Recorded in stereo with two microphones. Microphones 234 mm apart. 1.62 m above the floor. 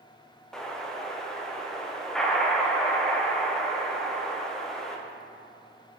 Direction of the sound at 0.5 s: 5° left (ahead or behind).